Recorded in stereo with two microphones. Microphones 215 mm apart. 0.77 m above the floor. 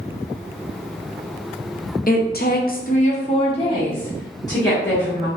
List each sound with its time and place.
2.1 s a woman speaking: 40° left (ahead or behind), 0.6 m; by 5.3 s 15° left (ahead or behind), 1.9 m